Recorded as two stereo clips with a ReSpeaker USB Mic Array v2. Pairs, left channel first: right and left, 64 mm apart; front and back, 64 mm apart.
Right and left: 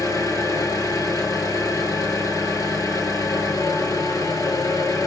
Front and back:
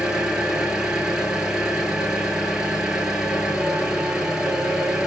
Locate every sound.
0.0 s an engine running: 100° right, 1.3 m